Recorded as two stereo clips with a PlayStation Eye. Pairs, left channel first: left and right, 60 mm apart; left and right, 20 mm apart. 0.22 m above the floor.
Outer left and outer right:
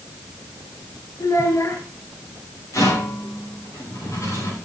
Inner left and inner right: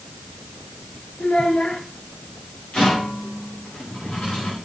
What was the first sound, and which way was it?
A child speaking, 60° left (ahead or behind).